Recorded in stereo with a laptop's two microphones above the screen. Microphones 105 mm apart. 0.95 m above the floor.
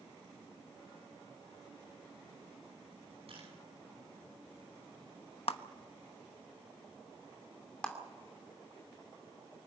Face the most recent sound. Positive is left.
turn(degrees=10)  # may be behind; listen again after turning